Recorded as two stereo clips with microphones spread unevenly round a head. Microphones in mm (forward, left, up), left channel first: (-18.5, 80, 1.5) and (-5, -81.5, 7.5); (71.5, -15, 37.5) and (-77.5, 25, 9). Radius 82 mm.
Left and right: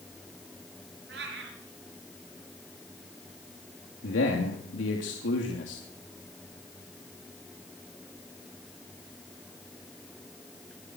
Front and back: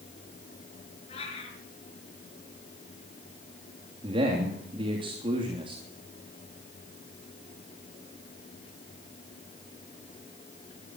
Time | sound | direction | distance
1.1 | a cat meowing | 65° right | 5 m
4.0 | a man speaking | 105° left | 3 m